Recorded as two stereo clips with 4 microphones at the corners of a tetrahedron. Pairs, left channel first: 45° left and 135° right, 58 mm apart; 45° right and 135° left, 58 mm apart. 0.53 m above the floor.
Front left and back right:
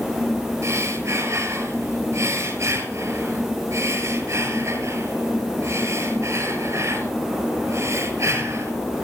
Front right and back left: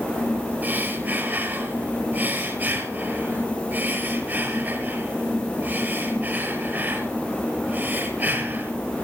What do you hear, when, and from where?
0.6 s breathing: 170° right, 6.5 m